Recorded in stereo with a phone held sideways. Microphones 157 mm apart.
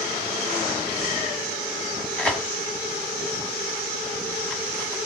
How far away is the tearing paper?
About 1.8 m.